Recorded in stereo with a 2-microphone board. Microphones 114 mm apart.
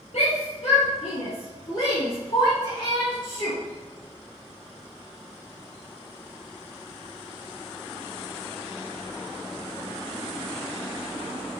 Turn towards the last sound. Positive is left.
turn(degrees=40)  # may be behind; listen again after turning